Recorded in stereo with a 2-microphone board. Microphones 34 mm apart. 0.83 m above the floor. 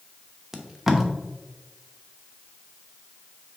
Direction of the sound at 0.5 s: 10° right (ahead or behind).